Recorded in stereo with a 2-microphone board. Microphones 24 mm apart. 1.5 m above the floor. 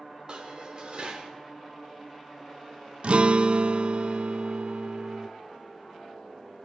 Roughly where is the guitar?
Right.